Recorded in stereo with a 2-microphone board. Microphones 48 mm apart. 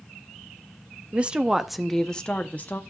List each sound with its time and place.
1.1 s a woman speaking: 30° right (ahead or behind), 0.7 m; by 2.8 s 40° left (ahead or behind), 0.9 m